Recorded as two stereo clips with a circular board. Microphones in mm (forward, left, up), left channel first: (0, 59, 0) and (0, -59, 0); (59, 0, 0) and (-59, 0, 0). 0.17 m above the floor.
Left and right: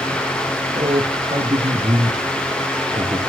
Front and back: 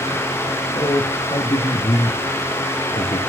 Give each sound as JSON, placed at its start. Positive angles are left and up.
{"t": 0.8, "sound": "a man speaking", "azimuth_deg": -55, "distance_m": 5.0}